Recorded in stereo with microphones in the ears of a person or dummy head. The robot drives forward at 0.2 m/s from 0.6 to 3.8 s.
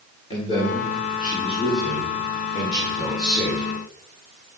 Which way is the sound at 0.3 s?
35° left (ahead or behind).